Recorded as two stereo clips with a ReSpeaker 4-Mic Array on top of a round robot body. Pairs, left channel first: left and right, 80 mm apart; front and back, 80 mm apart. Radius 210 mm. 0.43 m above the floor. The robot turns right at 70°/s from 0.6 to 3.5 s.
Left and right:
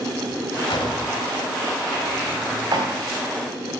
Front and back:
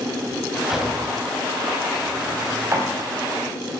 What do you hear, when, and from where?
0.7 s a drawer: 95° left, 2.5 m; by 2.9 s 115° right, 2.5 m